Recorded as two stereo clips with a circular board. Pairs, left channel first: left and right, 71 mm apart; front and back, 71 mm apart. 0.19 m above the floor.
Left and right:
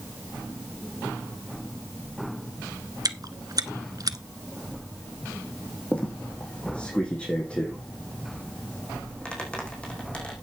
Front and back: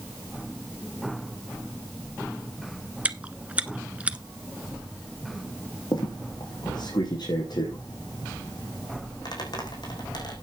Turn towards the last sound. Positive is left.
turn(degrees=15)